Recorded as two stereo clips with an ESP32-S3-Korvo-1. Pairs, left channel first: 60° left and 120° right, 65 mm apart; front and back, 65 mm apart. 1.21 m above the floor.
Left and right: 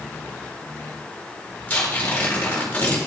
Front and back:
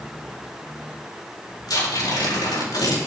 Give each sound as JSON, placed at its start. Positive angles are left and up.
{"t": 1.7, "sound": "tearing paper", "azimuth_deg": -10, "distance_m": 4.5}